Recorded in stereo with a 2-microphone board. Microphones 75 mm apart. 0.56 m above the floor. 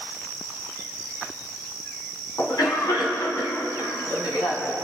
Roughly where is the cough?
Left.